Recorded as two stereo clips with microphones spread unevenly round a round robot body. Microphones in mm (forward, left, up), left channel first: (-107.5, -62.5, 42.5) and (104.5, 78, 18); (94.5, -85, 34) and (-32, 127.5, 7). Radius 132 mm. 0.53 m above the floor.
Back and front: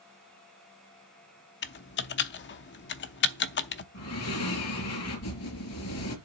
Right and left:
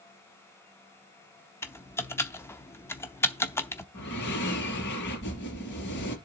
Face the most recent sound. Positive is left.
turn(degrees=-110)